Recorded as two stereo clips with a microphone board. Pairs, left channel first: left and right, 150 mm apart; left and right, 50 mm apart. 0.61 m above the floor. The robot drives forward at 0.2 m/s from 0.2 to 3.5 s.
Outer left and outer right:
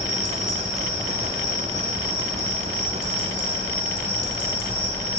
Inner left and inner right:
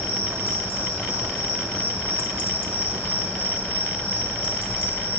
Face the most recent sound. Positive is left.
turn(degrees=35)  # may be behind; listen again after turning